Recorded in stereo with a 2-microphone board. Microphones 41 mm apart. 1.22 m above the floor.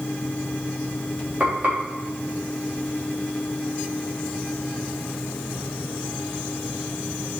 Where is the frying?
45° right (ahead or behind), 4 m.